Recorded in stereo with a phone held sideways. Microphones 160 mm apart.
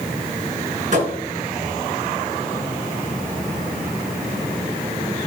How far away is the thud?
About 7.5 m.